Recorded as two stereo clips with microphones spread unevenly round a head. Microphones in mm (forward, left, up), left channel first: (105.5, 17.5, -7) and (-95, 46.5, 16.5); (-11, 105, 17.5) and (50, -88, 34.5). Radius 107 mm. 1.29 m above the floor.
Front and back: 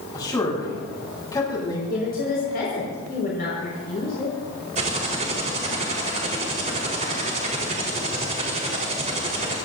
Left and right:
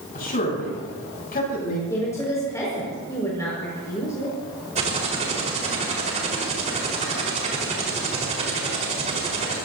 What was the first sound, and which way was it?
A man speaking, 60° left.